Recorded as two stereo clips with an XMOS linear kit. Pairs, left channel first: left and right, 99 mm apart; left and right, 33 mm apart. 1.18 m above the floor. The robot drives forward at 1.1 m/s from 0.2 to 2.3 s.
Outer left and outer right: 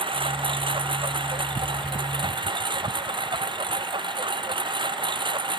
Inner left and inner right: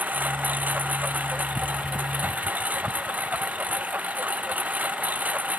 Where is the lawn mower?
60° right (ahead or behind); by 5.6 s 55° right (ahead or behind).